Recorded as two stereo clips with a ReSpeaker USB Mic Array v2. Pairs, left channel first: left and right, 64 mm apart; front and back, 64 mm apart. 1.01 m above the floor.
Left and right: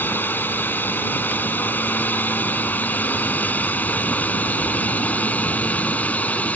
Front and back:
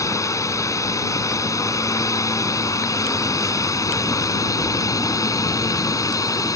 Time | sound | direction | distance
0.0 | a drone | 30° left | ?